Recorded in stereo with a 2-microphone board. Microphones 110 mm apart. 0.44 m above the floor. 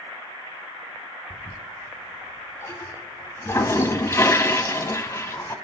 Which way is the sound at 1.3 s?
30° left (ahead or behind).